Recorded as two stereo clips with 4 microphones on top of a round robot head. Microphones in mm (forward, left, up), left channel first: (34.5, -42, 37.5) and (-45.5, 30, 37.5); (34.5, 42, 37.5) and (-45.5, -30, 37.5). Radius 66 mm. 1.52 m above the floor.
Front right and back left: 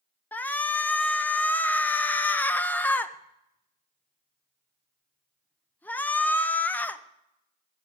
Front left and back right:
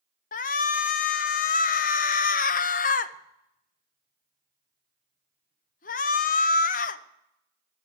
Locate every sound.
0.3 s a shout: 35° left, 0.7 m